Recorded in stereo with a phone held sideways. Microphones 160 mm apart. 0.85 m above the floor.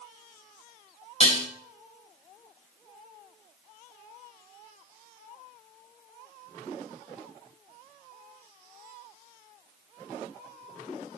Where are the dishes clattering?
40° left (ahead or behind), 0.6 m.